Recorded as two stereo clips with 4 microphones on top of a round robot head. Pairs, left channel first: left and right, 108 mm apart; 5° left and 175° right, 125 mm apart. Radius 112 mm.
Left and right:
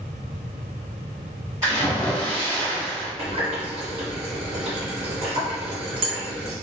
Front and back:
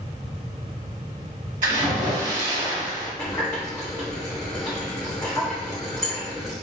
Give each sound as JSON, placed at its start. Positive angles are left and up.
{"t": 1.6, "sound": "a splash", "azimuth_deg": -160, "distance_m": 1.0}
{"t": 3.2, "sound": "a running tap", "azimuth_deg": -65, "distance_m": 0.7}